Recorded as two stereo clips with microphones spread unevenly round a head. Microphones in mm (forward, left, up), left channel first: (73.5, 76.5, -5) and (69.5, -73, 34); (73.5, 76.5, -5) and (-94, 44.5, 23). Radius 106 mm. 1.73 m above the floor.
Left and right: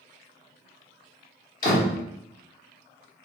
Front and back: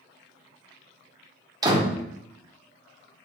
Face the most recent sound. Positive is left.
turn(degrees=140)